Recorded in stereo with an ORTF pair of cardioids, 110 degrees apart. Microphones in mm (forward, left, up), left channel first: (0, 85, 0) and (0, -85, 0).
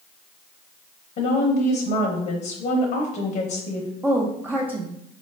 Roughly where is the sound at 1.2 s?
Ahead left.